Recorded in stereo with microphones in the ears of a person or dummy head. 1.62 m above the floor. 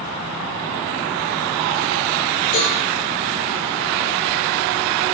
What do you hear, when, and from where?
2.5 s a cowbell: 75° left (ahead or behind), 3.5 m